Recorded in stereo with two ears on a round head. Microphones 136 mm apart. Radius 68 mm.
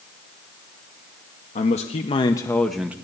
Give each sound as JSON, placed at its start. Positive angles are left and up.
{"t": 1.6, "sound": "a man speaking", "side_deg": 50, "distance_m": 0.9}